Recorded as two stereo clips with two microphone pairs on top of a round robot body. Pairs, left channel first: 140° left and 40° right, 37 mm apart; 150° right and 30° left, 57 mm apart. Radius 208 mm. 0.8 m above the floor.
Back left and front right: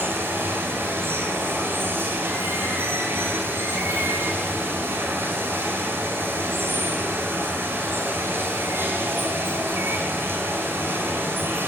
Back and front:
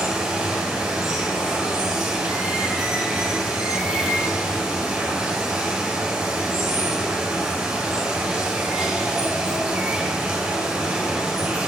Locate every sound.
0.0 s running water: 50° right, 2.5 m